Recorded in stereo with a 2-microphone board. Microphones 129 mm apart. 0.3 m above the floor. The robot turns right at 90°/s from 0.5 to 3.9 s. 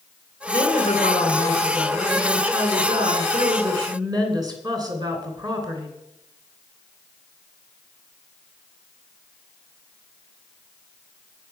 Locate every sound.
0.5 s a woman speaking: 20° left, 2.5 m; by 5.9 s 35° right, 2.5 m